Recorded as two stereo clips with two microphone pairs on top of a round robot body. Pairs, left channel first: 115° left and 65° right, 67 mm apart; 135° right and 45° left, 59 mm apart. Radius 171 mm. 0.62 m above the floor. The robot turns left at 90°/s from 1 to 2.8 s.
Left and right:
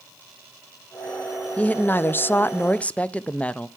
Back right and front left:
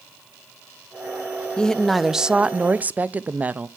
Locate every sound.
1.6 s a woman speaking: 170° left, 0.7 m; by 3.7 s 60° left, 0.7 m